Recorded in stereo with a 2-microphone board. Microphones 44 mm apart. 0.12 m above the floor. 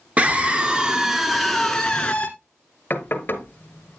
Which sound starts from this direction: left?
Knocking, at 2.9 s.